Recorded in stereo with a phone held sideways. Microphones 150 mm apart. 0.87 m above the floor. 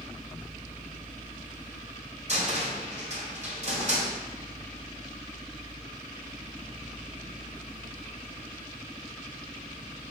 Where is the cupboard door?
50° right (ahead or behind), 2.5 m.